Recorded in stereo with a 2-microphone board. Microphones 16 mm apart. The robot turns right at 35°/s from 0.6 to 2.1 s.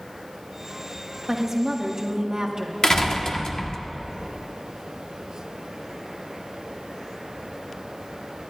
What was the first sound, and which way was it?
A woman speaking, 25° right (ahead or behind).